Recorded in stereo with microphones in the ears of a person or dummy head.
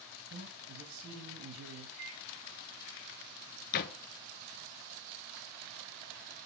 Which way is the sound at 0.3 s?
80° right.